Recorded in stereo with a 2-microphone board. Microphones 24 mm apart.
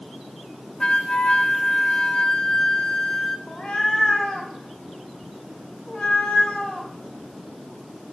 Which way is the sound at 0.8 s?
40° left (ahead or behind).